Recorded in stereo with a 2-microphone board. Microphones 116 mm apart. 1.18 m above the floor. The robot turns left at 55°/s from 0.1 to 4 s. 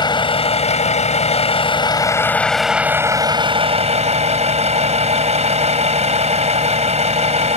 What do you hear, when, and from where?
0.0 s a vehicle: 135° left; by 7.6 s 80° right